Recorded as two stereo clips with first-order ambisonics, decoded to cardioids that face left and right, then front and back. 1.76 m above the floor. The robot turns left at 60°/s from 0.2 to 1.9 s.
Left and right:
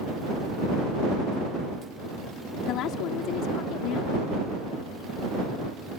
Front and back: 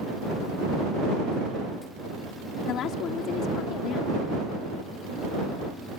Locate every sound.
2.7 s a woman speaking: 50° left